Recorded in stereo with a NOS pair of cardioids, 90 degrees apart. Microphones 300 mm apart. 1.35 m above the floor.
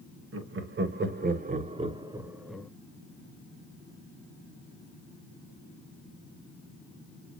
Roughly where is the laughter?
Ahead right.